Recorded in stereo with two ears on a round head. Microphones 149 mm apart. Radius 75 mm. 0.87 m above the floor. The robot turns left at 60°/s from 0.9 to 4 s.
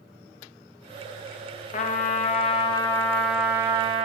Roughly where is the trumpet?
Left.